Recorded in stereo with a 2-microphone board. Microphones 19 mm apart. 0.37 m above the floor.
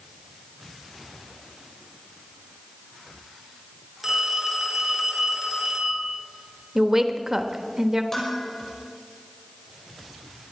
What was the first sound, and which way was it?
A phone ringing, 5° right (ahead or behind).